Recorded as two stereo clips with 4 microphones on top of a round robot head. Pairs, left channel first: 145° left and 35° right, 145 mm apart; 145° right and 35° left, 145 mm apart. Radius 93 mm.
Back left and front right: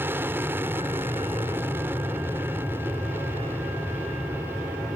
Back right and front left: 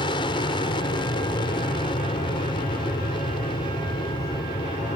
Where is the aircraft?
105° right.